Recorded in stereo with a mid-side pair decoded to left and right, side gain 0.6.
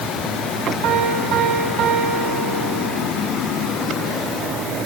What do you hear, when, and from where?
0.8 s a piano: 70° right, 6 m